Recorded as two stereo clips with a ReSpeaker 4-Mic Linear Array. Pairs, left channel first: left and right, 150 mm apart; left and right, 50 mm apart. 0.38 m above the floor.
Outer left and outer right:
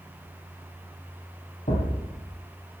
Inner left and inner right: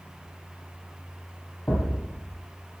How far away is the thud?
About 6 m.